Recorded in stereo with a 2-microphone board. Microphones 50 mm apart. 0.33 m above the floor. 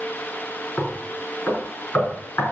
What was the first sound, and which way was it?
Knocking, 45° left (ahead or behind).